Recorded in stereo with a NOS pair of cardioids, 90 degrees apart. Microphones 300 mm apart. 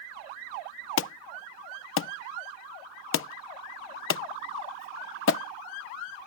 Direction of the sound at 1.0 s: 50° left.